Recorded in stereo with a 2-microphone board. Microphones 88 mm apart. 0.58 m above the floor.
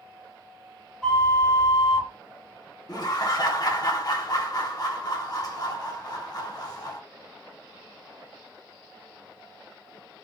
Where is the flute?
5° left (ahead or behind), 1.0 m.